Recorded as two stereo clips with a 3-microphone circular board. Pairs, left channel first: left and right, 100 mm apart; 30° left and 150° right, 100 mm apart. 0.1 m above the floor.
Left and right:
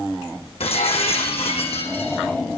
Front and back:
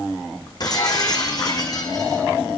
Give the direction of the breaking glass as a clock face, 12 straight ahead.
9 o'clock.